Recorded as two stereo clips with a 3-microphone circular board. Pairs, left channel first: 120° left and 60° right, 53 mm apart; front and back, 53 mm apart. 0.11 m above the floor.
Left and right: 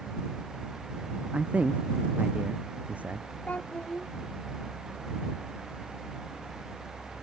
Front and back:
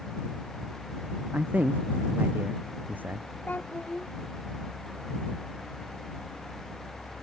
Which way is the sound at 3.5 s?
55° left.